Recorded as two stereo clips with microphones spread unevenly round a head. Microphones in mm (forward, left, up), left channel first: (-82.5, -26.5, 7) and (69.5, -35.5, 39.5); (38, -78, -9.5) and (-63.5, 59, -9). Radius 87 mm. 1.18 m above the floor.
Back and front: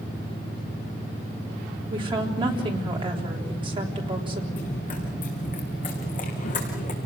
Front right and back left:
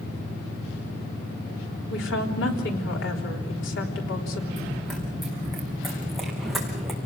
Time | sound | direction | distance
1.9 | a woman speaking | 65° right | 3.5 m
4.5 | running footsteps | 145° right | 5.5 m